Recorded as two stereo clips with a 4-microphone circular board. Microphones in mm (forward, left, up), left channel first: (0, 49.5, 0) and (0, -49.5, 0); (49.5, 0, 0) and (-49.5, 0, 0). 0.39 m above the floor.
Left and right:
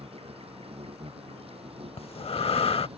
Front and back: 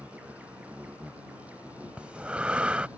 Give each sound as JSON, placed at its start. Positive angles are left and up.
{"t": 0.0, "sound": "an insect", "azimuth_deg": -105}
{"t": 2.0, "sound": "breathing", "azimuth_deg": 100}